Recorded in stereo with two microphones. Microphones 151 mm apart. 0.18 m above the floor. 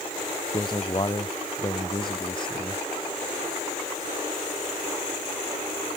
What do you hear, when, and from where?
0.5 s a man speaking: 35° left (ahead or behind)